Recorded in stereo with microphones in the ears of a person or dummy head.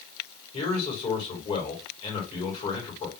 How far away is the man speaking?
About 2 m.